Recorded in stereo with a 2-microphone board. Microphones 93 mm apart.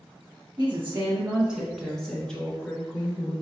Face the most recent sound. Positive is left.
turn(degrees=15)  # may be behind; listen again after turning